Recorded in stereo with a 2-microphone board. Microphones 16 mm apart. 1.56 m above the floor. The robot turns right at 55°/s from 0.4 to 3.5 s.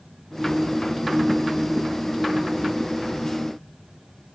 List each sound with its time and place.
Only background noise.